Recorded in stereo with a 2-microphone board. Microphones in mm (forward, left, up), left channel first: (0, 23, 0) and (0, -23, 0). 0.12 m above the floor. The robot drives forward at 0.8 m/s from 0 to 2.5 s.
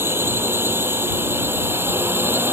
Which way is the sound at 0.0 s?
55° right (ahead or behind).